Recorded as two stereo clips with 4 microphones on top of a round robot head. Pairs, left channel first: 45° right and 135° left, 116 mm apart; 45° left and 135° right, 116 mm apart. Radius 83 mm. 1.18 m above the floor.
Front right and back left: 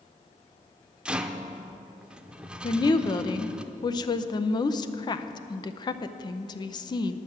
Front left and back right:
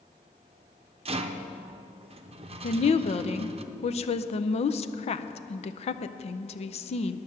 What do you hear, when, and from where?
1.1 s a rattle: 140° right, 0.7 m
2.6 s a woman speaking: 10° left, 0.6 m